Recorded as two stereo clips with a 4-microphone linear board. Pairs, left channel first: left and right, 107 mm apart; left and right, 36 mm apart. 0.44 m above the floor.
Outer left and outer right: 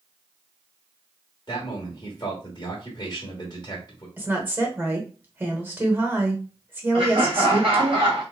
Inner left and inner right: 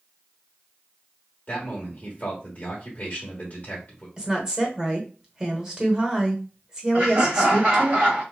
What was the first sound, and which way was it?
A man speaking, 40° left (ahead or behind).